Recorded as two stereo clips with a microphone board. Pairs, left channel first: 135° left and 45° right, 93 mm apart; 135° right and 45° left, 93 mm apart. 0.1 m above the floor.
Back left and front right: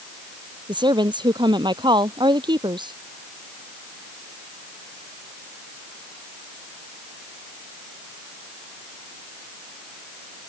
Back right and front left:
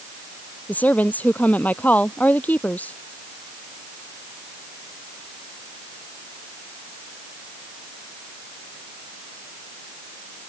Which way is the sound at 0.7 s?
65° right.